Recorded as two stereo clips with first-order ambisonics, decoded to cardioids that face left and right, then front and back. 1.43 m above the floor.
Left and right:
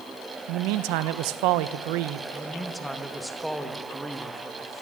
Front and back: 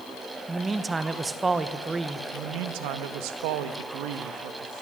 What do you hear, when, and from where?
0.5 s a man speaking: 105° right, 1.2 m
2.3 s a man speaking: straight behind, 1.6 m